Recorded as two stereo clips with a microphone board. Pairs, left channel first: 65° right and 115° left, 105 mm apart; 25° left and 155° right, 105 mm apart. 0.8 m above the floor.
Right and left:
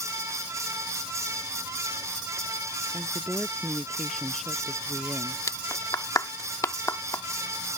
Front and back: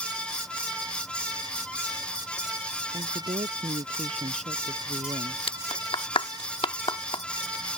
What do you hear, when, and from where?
2.9 s a woman speaking: 160° right; by 5.4 s 155° right
5.5 s a clap: 10° right